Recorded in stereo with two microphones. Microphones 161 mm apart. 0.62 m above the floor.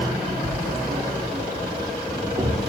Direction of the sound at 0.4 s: 35° right (ahead or behind).